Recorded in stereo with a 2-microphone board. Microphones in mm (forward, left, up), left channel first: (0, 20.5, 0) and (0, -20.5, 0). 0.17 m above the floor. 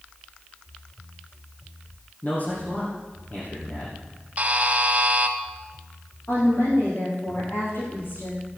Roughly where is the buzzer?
Right.